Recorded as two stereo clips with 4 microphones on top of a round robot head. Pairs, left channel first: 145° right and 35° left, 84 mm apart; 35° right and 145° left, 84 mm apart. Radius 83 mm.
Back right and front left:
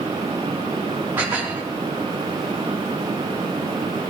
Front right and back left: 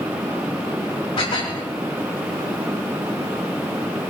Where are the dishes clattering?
30° right, 3.5 m.